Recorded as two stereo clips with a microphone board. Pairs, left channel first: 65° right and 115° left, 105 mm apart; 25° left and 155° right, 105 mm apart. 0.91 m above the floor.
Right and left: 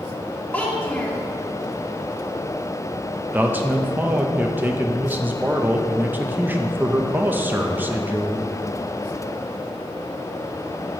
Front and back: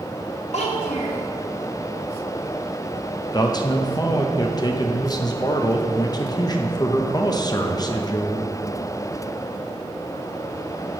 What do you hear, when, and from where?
0.5 s a child speaking: 10° left, 1.5 m
3.3 s a man speaking: 50° left, 0.6 m